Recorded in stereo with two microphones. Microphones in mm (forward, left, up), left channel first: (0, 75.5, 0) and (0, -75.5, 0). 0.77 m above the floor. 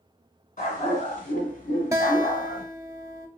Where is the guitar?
20° right (ahead or behind), 0.5 m.